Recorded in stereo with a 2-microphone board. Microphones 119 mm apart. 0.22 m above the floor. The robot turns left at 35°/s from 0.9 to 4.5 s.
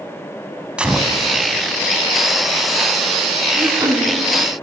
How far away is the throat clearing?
About 0.9 m.